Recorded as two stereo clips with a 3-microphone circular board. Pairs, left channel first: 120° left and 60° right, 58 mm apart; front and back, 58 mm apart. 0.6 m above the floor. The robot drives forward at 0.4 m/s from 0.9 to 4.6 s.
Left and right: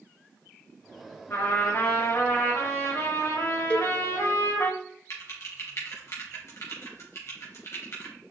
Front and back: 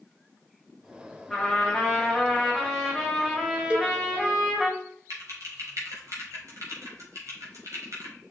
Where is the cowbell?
140° left, 1.2 m; by 4.0 s 145° left, 1.2 m.